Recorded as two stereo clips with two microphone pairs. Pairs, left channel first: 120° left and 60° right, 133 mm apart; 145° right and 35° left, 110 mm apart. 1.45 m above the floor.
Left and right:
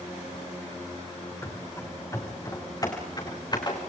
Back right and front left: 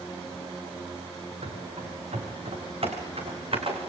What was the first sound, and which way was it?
Running footsteps, 55° left.